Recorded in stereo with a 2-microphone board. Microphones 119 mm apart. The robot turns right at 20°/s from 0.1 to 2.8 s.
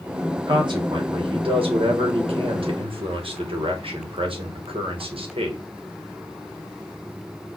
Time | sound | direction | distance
0.5 | a man speaking | 125° right | 1.3 m